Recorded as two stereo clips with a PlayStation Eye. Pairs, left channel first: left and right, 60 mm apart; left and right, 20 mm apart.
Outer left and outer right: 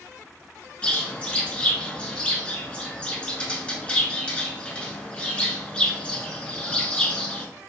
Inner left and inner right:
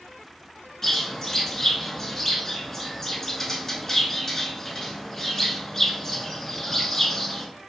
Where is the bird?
20° left (ahead or behind), 0.7 m.